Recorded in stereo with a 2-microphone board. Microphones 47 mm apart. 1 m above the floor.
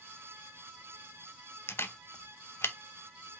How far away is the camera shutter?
About 0.7 m.